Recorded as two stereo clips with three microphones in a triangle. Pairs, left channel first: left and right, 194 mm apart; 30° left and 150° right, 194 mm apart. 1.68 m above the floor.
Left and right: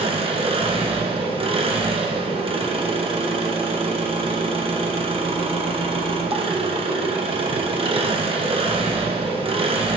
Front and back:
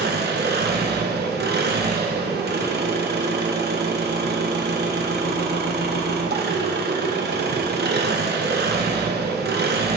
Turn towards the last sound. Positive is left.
turn(degrees=-145)